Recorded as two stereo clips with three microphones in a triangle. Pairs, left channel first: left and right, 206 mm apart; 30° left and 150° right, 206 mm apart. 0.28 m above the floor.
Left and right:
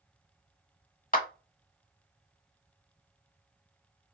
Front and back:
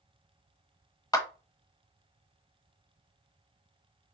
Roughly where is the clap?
Left.